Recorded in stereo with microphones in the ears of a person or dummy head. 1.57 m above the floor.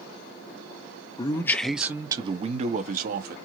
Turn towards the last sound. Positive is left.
turn(degrees=-55)  # may be behind; listen again after turning